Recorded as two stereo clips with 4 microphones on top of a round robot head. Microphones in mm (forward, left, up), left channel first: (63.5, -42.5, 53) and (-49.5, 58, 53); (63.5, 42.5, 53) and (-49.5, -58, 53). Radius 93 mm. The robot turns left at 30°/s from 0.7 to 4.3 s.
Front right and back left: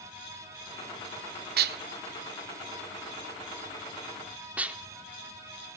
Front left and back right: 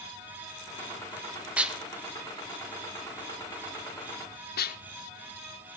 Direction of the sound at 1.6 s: 140° left.